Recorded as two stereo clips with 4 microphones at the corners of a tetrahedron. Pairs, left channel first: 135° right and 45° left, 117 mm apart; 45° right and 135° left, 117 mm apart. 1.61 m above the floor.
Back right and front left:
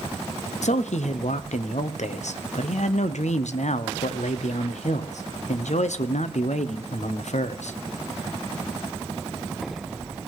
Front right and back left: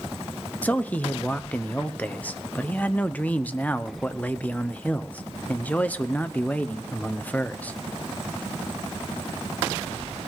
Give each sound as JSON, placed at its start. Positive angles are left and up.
{"t": 0.6, "sound": "a man speaking", "azimuth_deg": -120, "distance_m": 0.8}